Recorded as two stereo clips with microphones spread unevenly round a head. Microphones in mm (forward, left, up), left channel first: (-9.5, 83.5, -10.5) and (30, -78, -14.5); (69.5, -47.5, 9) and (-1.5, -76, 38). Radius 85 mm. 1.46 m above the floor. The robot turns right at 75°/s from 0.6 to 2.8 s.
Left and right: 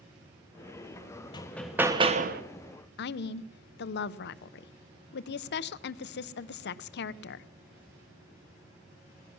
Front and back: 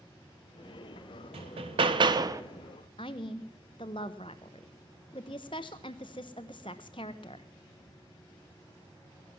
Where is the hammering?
170° left, 0.9 m; by 2.4 s 110° right, 0.9 m.